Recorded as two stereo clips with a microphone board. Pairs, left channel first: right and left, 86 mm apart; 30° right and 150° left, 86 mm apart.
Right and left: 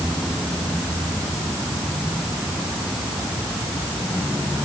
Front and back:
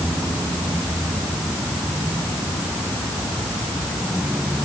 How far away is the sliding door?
I don't hear a sliding door.